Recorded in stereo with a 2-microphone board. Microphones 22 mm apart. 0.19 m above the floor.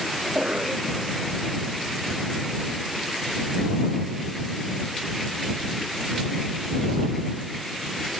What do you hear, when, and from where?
0.2 s a cough: 75° right (ahead or behind)